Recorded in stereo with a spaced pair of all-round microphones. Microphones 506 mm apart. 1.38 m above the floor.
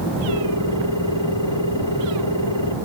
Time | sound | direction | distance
0.3 | a ringtone | 55° left (ahead or behind) | ?